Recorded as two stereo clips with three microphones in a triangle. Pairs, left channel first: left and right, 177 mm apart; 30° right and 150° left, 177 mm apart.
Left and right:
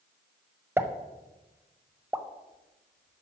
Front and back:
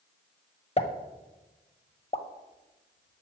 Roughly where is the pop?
Ahead.